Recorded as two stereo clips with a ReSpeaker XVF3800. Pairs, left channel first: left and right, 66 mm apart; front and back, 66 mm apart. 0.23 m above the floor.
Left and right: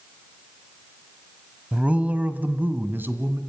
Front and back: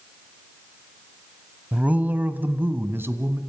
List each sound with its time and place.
1.7 s a man speaking: 140° right, 1.3 m; by 3.4 s 135° right, 1.9 m